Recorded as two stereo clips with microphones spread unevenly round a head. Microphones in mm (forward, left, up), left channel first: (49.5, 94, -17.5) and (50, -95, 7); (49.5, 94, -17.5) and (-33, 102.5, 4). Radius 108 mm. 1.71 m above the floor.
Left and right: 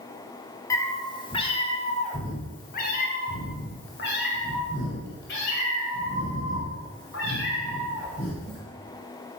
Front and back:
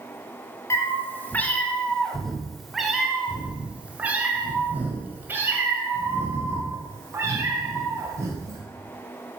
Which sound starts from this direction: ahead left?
A cat meowing, at 0.7 s.